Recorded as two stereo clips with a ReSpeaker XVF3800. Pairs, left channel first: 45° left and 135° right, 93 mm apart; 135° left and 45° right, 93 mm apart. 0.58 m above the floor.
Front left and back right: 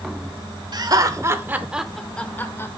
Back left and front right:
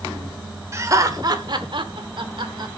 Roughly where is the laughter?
Right.